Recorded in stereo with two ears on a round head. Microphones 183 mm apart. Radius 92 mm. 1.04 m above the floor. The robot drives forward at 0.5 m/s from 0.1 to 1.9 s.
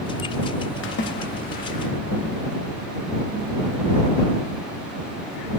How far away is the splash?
About 0.8 m.